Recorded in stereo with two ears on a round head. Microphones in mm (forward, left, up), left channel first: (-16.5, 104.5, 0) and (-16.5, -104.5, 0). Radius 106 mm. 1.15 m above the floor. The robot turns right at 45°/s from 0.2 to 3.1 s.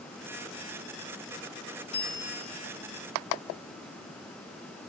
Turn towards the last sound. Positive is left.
turn(degrees=-160)